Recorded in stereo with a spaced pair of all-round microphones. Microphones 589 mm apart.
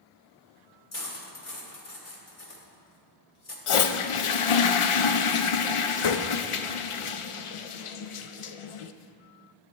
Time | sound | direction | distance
0.9 | cutlery clinking | 65° left (ahead or behind) | 1.5 m
3.7 | a toilet flushing | 60° left (ahead or behind) | 0.5 m